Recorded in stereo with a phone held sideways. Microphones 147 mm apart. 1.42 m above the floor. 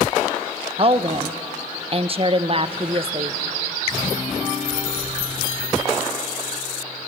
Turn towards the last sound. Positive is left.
turn(degrees=-40)  # may be behind; listen again after turning